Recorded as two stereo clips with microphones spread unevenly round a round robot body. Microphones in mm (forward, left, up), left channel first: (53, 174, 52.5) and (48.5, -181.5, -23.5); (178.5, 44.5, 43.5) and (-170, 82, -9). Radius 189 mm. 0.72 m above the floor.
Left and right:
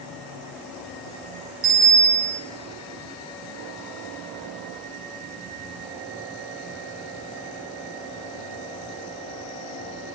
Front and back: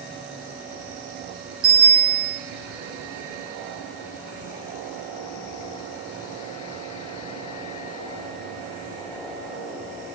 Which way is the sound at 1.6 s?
130° right.